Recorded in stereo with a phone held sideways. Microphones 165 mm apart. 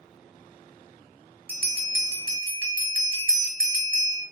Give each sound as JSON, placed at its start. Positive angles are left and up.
{"t": 1.5, "sound": "a bell", "side_deg": -65, "distance_m": 0.9}